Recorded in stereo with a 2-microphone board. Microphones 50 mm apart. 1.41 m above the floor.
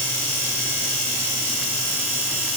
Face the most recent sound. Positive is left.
No sound to turn to.